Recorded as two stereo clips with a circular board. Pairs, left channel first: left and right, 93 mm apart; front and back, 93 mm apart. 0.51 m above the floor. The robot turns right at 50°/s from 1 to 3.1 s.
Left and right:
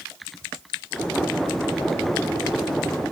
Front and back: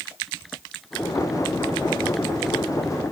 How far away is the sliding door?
No sliding door in this recording.